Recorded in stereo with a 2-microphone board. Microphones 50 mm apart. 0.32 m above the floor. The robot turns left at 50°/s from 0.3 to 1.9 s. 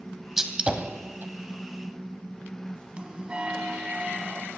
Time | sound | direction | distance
0.4 | a gunshot | 10° right (ahead or behind) | 1.2 m
3.0 | a bell | 25° right (ahead or behind) | 1.3 m